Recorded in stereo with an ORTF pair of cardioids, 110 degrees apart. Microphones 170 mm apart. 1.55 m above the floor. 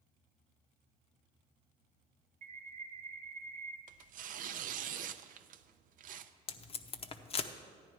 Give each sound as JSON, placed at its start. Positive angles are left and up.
{"t": 2.4, "sound": "a bird", "azimuth_deg": -40, "distance_m": 1.2}
{"t": 3.9, "sound": "tearing paper", "azimuth_deg": -55, "distance_m": 0.6}
{"t": 6.5, "sound": "tape being pulled", "azimuth_deg": 35, "distance_m": 0.8}